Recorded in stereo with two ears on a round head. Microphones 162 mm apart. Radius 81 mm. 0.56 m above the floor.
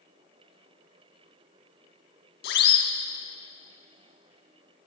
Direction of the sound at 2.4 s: 65° left (ahead or behind).